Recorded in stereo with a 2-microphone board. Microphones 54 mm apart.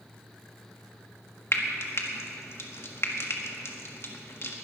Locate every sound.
1.5 s frying: 50° left (ahead or behind), 1.6 m